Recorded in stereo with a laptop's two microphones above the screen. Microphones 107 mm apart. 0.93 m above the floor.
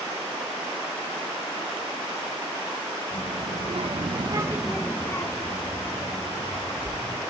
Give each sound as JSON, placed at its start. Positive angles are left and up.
{"t": 3.1, "sound": "a child speaking", "side_deg": -90, "distance_m": 2.0}